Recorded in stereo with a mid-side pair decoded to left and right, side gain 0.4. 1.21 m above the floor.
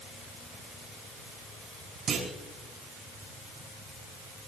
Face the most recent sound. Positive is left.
turn(degrees=-65)